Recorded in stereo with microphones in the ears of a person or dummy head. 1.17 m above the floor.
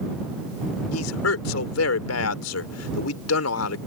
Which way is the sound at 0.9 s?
85° left.